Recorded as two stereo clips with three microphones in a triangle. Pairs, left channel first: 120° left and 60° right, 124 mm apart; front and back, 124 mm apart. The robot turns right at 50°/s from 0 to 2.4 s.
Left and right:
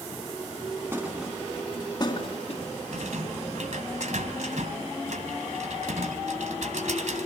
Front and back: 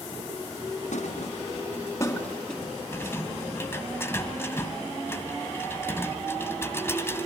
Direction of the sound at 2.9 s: 70° right.